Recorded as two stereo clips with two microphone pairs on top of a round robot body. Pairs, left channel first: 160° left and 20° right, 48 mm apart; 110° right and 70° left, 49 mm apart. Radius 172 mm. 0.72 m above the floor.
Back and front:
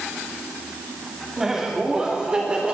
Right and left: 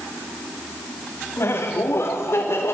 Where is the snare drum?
I don't hear a snare drum.